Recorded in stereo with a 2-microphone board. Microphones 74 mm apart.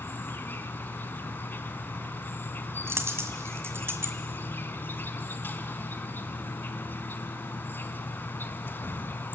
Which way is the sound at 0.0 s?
30° left (ahead or behind).